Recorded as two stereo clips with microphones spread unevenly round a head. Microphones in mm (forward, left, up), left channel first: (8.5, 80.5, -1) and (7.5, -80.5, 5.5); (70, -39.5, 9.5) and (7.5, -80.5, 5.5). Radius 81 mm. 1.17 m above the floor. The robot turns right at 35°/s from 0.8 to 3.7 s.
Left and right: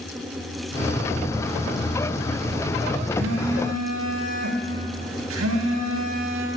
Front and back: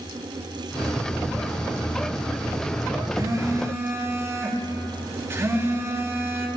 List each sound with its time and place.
3.1 s a phone buzzing: 110° right, 2 m; by 6.5 s 90° right, 2 m